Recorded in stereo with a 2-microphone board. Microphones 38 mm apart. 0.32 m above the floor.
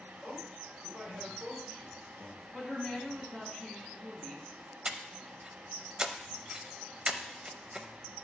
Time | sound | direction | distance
0.2 | a man speaking | 50° right (ahead or behind) | 5 m
2.5 | a woman speaking | 10° right (ahead or behind) | 4 m
4.8 | breathing | 25° right (ahead or behind) | 0.6 m